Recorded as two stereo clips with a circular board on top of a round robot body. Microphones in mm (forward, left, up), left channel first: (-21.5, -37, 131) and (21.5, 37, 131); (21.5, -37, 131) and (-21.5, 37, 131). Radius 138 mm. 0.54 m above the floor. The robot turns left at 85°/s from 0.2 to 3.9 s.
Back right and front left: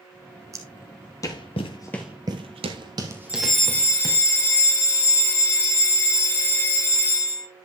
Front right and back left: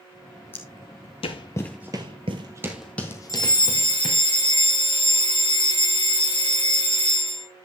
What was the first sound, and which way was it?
Footsteps, 5° left.